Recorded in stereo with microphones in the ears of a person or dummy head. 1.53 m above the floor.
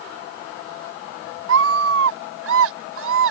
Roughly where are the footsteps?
I don't hear footsteps.